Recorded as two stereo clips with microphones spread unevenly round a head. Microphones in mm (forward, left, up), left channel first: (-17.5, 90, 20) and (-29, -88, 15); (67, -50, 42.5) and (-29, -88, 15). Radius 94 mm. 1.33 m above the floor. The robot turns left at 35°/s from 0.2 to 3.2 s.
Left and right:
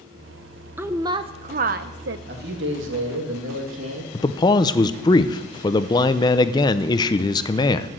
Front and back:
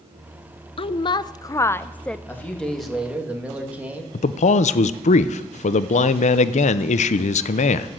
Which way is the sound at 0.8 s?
10° right.